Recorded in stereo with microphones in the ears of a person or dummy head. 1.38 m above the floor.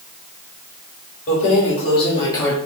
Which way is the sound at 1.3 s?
40° left (ahead or behind).